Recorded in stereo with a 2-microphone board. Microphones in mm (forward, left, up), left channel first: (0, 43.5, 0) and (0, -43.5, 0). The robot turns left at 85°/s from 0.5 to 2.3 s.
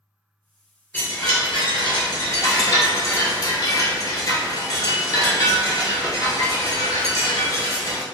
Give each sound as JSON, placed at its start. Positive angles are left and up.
{"t": 0.9, "sound": "a chime", "azimuth_deg": 160, "distance_m": 0.9}